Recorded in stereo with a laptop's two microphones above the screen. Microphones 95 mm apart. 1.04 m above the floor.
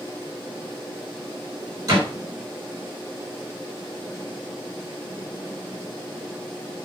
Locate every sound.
1.9 s a door slam: 35° right (ahead or behind), 3.5 m